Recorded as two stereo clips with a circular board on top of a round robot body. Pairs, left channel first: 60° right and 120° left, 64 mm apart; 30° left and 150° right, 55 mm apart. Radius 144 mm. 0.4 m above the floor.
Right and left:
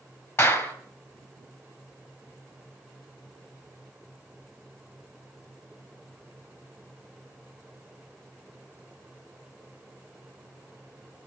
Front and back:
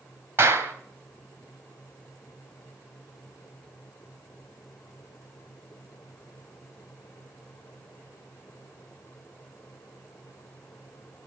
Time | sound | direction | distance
0.4 | a clap | 105° right | 2.5 m